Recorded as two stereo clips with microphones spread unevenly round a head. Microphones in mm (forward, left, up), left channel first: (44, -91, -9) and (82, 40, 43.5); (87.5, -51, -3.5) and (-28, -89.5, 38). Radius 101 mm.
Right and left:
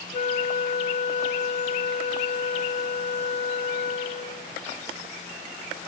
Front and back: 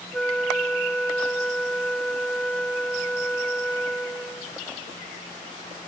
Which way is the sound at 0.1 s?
70° right.